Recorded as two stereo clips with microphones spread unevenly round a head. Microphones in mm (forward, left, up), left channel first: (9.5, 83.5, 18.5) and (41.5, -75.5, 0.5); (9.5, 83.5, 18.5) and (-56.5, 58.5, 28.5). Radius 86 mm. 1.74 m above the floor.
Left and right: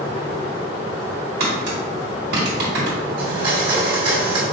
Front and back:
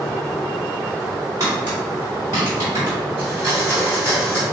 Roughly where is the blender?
Behind right.